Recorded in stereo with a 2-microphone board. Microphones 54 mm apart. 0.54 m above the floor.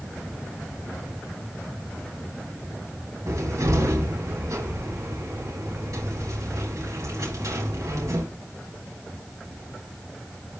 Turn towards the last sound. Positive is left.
turn(degrees=-70)  # may be behind; listen again after turning